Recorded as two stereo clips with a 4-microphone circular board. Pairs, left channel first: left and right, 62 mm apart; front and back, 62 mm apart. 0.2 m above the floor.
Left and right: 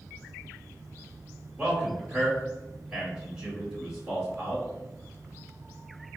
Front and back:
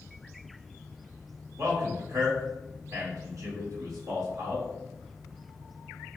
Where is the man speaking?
160° right, 1.9 m.